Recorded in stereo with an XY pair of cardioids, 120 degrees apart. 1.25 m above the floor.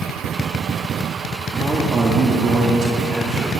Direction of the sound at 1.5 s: 20° right.